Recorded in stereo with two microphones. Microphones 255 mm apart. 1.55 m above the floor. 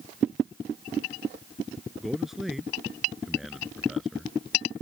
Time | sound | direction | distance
2.0 | a man speaking | centre (ahead or behind) | ?